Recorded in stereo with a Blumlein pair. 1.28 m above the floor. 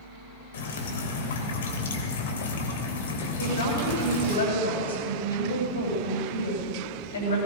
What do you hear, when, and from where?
0.5 s dripping: 60° left, 3 m
3.4 s a woman speaking: 70° left, 8 m